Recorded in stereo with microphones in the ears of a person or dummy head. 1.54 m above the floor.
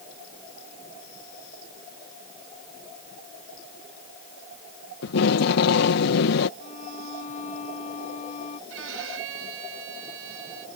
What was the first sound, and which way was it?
Tape being pulled, 75° left (ahead or behind).